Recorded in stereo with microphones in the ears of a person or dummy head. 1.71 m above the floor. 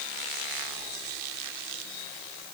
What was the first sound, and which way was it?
Only background noise.